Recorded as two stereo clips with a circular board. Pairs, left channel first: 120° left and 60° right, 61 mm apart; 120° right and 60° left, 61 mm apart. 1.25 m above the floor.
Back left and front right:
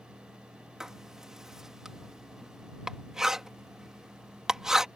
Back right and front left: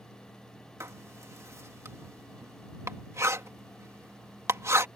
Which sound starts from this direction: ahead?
Writing, at 0.8 s.